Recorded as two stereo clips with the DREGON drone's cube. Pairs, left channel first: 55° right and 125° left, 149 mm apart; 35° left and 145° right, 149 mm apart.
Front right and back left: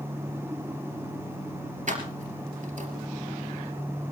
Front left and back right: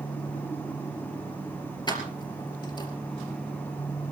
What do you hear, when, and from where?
1.9 s keys jangling: 95° left, 3 m